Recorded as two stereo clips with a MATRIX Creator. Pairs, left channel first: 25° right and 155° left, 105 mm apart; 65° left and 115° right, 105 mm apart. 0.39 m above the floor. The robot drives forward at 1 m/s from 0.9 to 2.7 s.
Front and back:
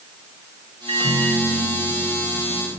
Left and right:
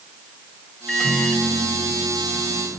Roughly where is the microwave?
Behind left.